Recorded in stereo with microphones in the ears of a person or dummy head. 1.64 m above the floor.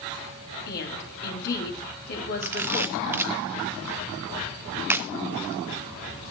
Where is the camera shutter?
15° right (ahead or behind), 0.8 m.